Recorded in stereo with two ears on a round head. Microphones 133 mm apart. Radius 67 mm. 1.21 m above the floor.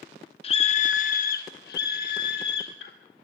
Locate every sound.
0.4 s a scream: 40° left (ahead or behind), 0.9 m; by 2.9 s 85° left, 2 m